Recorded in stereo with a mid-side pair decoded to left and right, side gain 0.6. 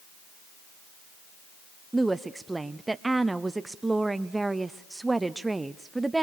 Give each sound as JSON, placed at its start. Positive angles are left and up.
{"t": 1.9, "sound": "a woman speaking", "azimuth_deg": -15, "distance_m": 0.6}